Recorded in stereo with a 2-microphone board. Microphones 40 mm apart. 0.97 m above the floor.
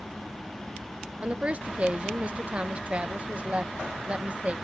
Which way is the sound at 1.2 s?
30° right (ahead or behind).